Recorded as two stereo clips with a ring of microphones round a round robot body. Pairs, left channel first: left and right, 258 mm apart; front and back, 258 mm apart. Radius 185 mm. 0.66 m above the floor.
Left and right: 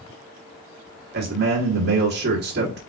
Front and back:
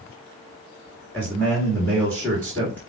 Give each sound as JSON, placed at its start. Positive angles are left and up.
{"t": 1.1, "sound": "a man speaking", "azimuth_deg": -80, "distance_m": 1.3}